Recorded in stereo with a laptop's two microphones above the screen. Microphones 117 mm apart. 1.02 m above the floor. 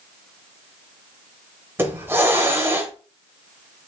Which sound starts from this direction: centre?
A hiss, at 1.8 s.